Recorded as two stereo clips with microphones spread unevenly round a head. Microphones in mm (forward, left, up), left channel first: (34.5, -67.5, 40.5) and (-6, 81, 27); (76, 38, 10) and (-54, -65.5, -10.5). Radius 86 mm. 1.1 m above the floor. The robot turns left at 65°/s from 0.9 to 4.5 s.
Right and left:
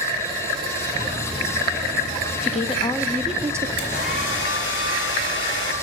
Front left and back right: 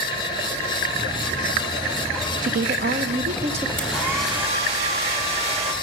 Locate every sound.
2.4 s a woman speaking: 115° right, 0.5 m; by 3.7 s 165° left, 0.5 m
3.8 s a hair dryer: 40° right, 2 m; by 5.7 s 90° right, 2 m